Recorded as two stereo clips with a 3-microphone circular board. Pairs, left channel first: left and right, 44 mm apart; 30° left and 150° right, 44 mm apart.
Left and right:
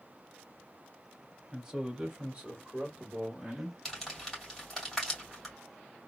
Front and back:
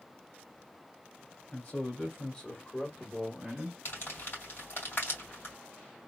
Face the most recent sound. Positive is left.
turn(degrees=0)